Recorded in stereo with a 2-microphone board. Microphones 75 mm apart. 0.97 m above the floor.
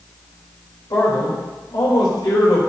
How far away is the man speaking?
About 3.5 m.